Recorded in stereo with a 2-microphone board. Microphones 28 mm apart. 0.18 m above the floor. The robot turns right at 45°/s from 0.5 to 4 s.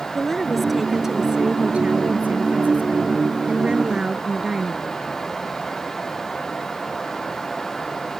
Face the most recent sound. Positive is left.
turn(degrees=-30)